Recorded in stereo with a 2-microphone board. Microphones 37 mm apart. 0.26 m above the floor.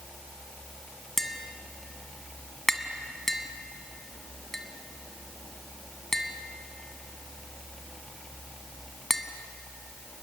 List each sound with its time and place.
1.2 s tapping: 10° left (ahead or behind), 1.2 m